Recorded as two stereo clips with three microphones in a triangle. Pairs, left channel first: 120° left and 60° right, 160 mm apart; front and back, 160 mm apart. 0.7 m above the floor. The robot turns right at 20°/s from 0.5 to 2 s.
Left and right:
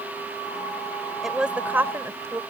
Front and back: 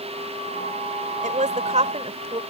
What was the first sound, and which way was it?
A woman speaking, 150° right.